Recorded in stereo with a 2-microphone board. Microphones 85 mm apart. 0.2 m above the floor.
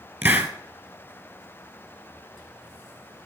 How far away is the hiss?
About 1.1 m.